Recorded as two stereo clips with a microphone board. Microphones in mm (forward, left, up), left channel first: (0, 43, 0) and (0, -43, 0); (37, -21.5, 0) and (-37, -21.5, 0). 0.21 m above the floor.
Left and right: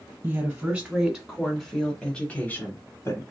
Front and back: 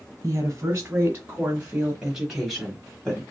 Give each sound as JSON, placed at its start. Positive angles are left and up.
{"t": 0.2, "sound": "a woman speaking", "azimuth_deg": -140, "distance_m": 1.4}